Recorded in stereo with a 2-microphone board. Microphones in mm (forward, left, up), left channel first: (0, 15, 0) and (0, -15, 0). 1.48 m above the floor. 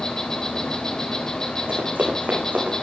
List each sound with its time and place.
0.0 s an insect: 25° left (ahead or behind), 3 m
1.7 s running footsteps: 70° right (ahead or behind), 7.5 m; by 2.7 s 75° right (ahead or behind), 7.5 m